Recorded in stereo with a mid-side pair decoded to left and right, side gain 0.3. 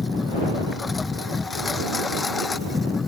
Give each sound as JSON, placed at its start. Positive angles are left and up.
{"t": 0.0, "sound": "a lawn mower", "azimuth_deg": 40}